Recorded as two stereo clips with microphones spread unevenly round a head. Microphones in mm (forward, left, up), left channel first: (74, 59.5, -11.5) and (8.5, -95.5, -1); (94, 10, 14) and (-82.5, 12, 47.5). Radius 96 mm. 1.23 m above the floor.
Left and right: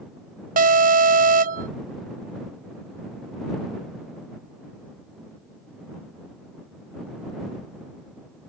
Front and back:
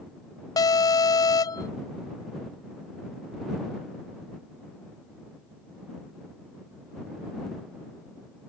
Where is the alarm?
70° right.